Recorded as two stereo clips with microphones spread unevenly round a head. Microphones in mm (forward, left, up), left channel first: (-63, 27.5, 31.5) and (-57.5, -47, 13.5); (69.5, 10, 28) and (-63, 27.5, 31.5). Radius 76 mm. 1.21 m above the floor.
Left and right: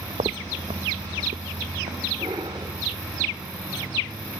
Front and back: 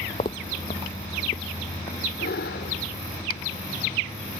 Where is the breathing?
25° right.